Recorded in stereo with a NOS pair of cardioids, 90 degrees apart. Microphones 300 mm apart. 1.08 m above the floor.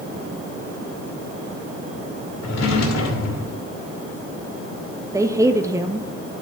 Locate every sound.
2.4 s a drawer: 65° left, 2.5 m
5.1 s a woman speaking: 10° right, 0.9 m